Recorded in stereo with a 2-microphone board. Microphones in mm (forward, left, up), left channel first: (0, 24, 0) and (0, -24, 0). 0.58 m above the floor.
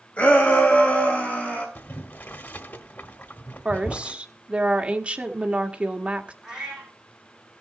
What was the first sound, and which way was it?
A shout, 40° left (ahead or behind).